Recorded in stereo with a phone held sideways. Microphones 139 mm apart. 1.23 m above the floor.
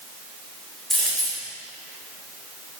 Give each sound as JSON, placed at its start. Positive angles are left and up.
{"t": 0.9, "sound": "a dropped coin", "side_deg": 5, "distance_m": 1.4}